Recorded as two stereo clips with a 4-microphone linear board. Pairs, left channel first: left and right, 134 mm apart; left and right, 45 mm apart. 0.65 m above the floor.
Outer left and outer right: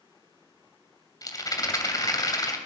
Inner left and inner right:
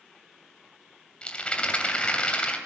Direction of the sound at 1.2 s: 25° left (ahead or behind).